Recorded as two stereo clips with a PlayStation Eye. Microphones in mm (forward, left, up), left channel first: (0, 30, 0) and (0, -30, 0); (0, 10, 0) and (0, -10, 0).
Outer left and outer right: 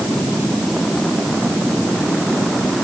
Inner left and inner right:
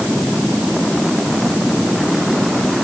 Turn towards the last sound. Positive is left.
No sound to turn to.